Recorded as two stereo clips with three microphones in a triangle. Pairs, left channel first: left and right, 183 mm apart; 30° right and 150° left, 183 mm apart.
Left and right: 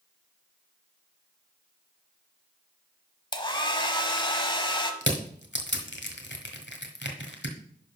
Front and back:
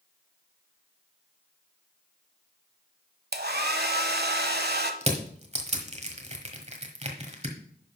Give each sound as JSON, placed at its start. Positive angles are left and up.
{"t": 3.3, "sound": "a hair dryer", "azimuth_deg": 150, "distance_m": 0.9}
{"t": 5.0, "sound": "crushing", "azimuth_deg": 100, "distance_m": 1.4}